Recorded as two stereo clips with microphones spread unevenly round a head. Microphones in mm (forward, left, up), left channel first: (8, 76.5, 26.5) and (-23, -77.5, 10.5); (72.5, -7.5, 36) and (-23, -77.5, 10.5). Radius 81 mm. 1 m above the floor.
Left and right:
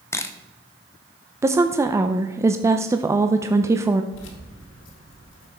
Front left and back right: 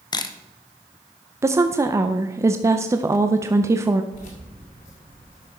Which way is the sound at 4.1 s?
85° left.